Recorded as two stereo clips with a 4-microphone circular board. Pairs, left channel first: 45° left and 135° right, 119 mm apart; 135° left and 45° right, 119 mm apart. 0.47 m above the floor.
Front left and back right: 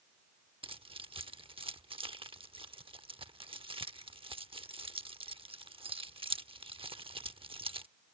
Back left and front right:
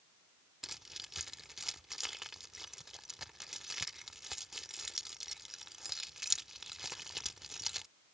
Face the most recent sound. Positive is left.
turn(degrees=-130)